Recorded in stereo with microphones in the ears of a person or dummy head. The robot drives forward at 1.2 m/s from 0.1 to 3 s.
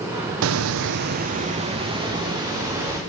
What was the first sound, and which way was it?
A hiss, 75° right (ahead or behind).